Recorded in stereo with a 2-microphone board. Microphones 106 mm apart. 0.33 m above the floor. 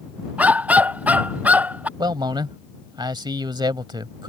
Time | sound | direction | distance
0.4 | a dog barking | 15° right (ahead or behind) | ?
2.0 | a man speaking | 45° right (ahead or behind) | ?